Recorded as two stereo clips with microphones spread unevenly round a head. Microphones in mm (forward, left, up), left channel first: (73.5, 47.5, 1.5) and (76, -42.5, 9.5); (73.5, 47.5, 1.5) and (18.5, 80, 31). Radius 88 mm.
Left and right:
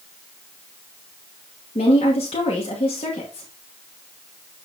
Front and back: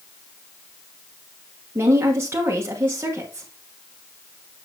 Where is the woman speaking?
120° left, 1.3 m.